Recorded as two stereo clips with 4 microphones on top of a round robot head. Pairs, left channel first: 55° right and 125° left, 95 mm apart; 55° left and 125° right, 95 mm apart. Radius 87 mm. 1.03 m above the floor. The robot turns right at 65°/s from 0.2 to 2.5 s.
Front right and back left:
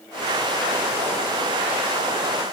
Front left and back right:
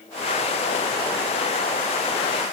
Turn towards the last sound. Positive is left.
No sound to turn to.